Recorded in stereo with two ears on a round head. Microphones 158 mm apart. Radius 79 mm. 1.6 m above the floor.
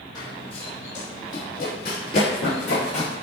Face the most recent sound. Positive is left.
turn(degrees=65)  # may be behind; listen again after turning